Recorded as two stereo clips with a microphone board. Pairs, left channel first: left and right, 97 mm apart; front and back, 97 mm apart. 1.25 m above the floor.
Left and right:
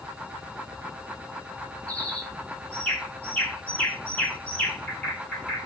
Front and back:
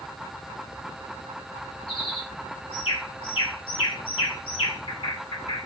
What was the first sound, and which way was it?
A bird, 20° left.